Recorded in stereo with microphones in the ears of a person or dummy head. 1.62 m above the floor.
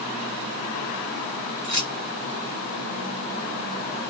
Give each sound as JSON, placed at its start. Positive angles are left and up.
{"t": 1.6, "sound": "keys jangling", "side_deg": 10, "distance_m": 1.1}